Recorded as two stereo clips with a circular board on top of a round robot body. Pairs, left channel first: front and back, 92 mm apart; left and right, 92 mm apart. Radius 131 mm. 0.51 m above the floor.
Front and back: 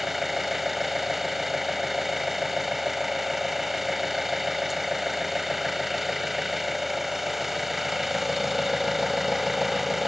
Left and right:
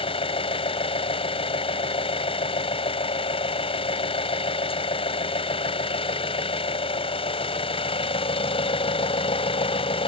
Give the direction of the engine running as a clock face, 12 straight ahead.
9 o'clock.